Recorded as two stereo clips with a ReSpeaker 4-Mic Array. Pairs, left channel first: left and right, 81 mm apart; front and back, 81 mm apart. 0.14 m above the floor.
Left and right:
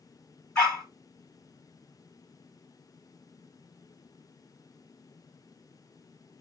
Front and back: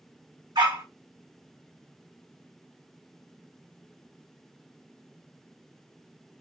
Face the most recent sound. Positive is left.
turn(degrees=170)